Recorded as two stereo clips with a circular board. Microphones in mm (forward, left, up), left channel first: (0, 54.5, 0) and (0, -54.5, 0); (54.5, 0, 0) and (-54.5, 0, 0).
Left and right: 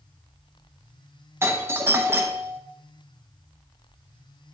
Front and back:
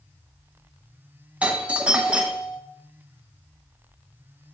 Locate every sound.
1.4 s a doorbell: 120° right, 0.7 m